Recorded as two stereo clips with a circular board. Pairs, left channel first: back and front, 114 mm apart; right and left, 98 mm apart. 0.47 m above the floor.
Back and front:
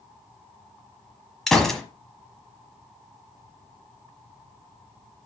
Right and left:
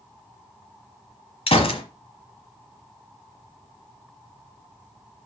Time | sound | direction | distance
1.5 | a gunshot | 95° right | 1.2 m